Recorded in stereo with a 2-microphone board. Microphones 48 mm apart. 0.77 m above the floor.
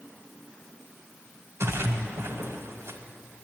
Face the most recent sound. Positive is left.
turn(degrees=-65)  # may be behind; listen again after turning